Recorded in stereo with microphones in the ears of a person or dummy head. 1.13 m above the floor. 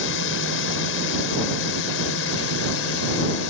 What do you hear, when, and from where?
0.0 s a drone: 65° left (ahead or behind); by 3.5 s 70° left (ahead or behind)